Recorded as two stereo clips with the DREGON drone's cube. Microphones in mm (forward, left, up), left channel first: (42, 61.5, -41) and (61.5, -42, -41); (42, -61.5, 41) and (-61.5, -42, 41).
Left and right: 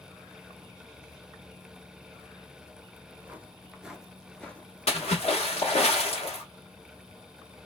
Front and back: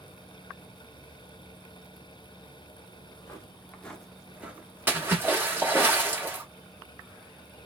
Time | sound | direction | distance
3.0 | footsteps | 25° right | 0.9 m
4.9 | a splash | 100° left | 1.2 m